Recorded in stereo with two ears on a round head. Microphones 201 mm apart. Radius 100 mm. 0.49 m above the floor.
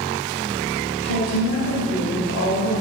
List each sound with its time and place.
1.0 s a woman speaking: 65° left (ahead or behind), 2 m